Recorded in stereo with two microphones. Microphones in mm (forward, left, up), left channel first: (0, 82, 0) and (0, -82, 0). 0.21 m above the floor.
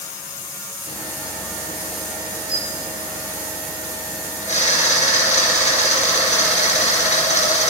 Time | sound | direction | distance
0.9 | a camera shutter | 50° left (ahead or behind) | 3.5 m